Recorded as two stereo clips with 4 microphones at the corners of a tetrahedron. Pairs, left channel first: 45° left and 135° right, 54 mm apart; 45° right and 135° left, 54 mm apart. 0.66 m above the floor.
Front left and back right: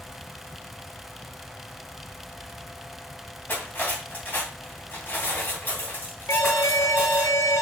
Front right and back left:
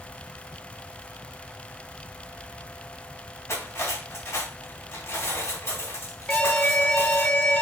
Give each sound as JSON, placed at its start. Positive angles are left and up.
{"t": 3.5, "sound": "cutlery clinking", "azimuth_deg": -10, "distance_m": 2.5}
{"t": 6.3, "sound": "an alarm", "azimuth_deg": 20, "distance_m": 1.3}